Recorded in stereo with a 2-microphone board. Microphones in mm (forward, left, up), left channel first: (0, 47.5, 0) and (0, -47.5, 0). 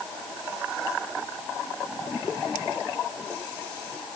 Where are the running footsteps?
I don't hear running footsteps.